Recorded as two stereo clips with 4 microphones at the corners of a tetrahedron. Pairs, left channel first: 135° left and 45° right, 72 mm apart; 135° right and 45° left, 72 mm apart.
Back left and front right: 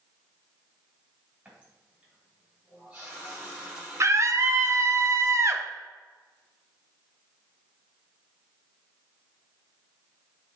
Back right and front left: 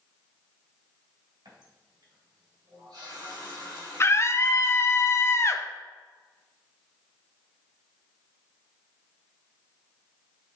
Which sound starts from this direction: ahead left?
A running tap, at 1.4 s.